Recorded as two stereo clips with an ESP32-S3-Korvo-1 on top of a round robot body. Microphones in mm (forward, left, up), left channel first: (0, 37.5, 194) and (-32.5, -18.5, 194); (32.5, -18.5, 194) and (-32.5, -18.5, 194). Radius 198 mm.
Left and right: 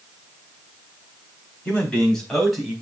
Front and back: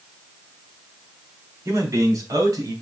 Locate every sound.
1.6 s a man speaking: 130° left, 4 m; by 2.7 s 155° left, 3.5 m